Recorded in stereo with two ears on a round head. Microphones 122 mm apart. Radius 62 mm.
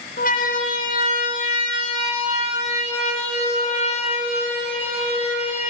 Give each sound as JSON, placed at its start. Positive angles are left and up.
{"t": 0.2, "sound": "a siren", "side_deg": 65, "distance_m": 2.0}